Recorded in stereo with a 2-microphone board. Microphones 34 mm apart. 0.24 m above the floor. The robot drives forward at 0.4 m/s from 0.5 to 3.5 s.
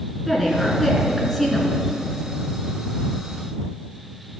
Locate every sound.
0.3 s a woman speaking: 5° right (ahead or behind), 3.5 m